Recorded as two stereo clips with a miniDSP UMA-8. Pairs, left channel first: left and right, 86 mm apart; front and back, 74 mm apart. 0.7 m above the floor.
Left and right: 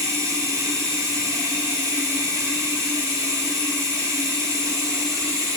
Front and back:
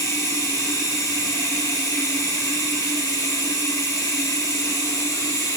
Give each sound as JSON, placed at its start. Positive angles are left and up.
{"t": 0.0, "sound": "running water", "azimuth_deg": -45, "distance_m": 2.5}